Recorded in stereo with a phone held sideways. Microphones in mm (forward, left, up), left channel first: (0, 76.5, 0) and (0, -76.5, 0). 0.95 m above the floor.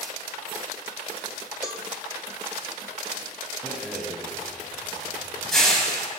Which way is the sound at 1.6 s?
20° left (ahead or behind).